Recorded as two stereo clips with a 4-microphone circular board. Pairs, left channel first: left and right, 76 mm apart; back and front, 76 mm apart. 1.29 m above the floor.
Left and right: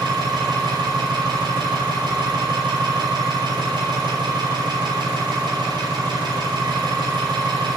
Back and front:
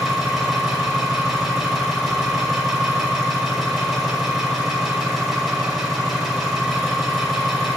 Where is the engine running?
90° right, 6 m.